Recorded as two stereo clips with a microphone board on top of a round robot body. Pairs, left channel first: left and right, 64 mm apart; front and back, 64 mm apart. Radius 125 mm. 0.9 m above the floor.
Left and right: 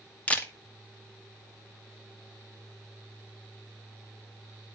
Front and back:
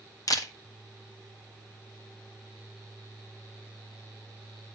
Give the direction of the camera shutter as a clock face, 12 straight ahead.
11 o'clock.